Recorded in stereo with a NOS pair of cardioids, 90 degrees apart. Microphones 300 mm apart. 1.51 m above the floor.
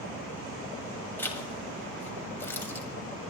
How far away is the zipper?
About 2.5 m.